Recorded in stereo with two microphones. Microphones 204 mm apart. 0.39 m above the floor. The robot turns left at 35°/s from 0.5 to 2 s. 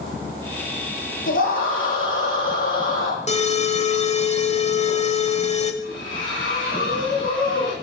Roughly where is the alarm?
Left.